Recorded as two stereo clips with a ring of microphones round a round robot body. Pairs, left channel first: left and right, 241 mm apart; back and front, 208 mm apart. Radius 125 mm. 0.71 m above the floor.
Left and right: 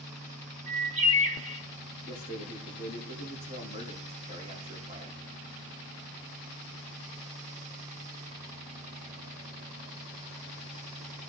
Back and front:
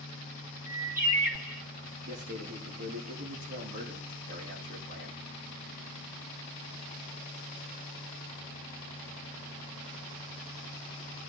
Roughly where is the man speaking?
Ahead right.